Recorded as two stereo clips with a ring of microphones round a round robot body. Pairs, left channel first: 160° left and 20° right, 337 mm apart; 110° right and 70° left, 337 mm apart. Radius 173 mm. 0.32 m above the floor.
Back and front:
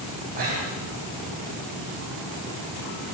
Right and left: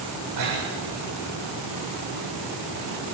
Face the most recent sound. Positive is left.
turn(degrees=45)